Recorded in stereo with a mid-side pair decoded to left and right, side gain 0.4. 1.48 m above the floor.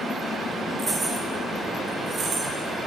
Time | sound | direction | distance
0.8 | keys jangling | 20° right | 2.5 m